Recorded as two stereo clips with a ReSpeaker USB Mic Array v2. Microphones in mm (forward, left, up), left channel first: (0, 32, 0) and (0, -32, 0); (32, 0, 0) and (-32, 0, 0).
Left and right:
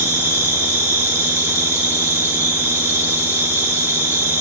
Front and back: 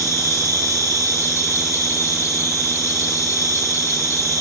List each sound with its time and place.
0.0 s an insect: 40° right, 4.5 m